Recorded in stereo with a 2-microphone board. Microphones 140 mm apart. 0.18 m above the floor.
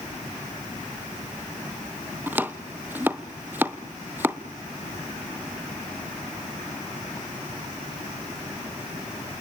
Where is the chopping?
15° right (ahead or behind), 1.0 m.